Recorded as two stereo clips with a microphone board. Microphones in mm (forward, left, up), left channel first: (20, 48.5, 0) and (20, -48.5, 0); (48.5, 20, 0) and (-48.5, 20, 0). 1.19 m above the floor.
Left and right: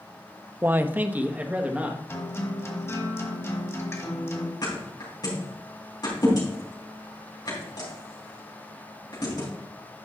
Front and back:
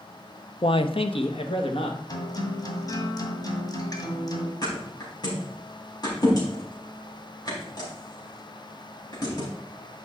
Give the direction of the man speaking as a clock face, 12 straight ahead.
1 o'clock.